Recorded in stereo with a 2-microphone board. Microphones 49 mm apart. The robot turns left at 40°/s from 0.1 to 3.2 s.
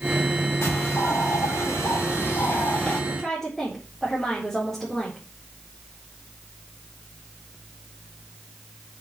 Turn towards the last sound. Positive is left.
turn(degrees=10)  # may be behind; listen again after turning